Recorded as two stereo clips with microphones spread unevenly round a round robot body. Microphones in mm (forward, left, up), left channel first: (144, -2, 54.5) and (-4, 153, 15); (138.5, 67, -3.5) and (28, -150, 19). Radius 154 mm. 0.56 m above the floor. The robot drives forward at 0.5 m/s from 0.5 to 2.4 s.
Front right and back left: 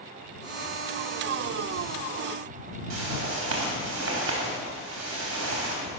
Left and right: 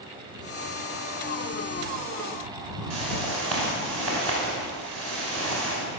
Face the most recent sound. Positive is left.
turn(degrees=150)